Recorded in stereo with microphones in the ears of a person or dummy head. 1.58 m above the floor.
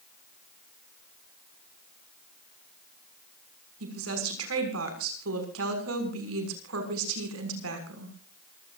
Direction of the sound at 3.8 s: 80° right.